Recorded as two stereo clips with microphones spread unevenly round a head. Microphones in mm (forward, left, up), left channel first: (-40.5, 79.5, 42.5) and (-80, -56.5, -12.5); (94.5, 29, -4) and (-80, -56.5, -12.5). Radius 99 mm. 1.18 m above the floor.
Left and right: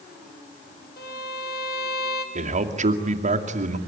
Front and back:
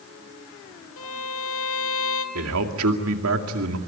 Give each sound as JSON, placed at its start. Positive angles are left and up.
{"t": 1.0, "sound": "a violin", "azimuth_deg": 45, "distance_m": 2.0}
{"t": 2.4, "sound": "a man speaking", "azimuth_deg": -140, "distance_m": 2.5}